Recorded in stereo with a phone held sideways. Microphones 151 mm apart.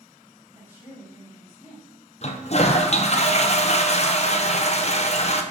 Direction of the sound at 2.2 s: 45° left (ahead or behind).